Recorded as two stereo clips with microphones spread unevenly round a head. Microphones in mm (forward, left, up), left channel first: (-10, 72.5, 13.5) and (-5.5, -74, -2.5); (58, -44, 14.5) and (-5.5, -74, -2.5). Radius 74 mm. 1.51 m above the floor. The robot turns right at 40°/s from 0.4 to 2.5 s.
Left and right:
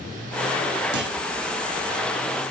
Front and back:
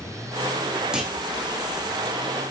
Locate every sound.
0.9 s a clunk: 75° right, 3.5 m; by 1.2 s 65° right, 3.5 m